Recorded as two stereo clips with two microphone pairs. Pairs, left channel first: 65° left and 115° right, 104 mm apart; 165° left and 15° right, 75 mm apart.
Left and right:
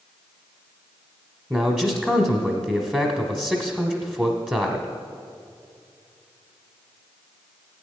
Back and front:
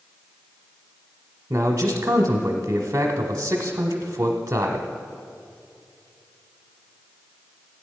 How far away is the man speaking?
About 1.1 m.